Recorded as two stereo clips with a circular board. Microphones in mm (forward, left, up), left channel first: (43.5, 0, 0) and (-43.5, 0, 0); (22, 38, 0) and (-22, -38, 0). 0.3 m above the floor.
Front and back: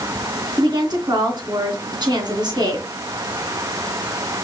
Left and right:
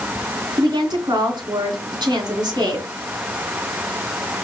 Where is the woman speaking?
150° right, 2.5 m.